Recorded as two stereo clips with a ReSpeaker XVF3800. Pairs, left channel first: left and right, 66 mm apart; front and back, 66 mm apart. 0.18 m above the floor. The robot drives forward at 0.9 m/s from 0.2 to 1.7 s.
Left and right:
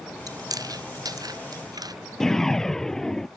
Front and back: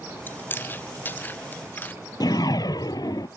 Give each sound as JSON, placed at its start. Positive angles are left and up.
{"t": 0.3, "sound": "chewing", "azimuth_deg": -60}
{"t": 2.2, "sound": "a whoosh", "azimuth_deg": 5}